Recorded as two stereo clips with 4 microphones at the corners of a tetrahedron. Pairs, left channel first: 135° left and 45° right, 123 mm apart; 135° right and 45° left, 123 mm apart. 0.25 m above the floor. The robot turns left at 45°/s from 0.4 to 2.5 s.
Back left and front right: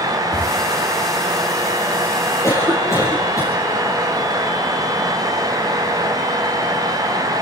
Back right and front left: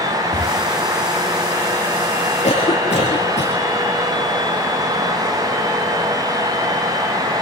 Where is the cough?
160° right, 6 m; by 3.6 s 165° right, 6 m.